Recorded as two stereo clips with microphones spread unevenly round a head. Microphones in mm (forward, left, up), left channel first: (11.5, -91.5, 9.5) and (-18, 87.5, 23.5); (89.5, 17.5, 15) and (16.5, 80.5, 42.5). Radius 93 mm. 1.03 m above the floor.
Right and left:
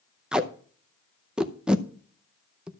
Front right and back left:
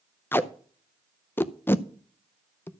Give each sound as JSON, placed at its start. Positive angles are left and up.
{"t": 0.3, "sound": "tape being pulled", "azimuth_deg": 15, "distance_m": 0.7}